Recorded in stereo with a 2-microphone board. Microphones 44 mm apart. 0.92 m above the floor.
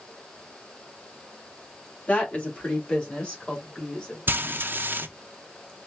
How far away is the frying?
About 0.5 m.